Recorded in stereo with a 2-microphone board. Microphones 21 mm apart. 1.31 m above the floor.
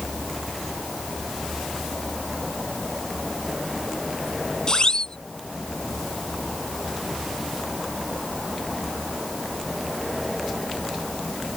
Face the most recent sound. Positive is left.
turn(degrees=40)  # may be behind; listen again after turning